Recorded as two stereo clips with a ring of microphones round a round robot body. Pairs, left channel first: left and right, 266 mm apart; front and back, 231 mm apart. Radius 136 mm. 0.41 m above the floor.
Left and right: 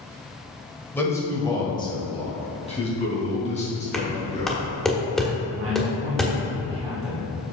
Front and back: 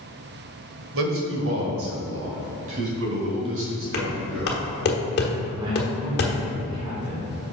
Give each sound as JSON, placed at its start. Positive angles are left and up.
{"t": 0.9, "sound": "a man speaking", "azimuth_deg": 170, "distance_m": 1.5}
{"t": 3.9, "sound": "knocking", "azimuth_deg": 0, "distance_m": 1.2}
{"t": 5.6, "sound": "a man speaking", "azimuth_deg": -110, "distance_m": 1.9}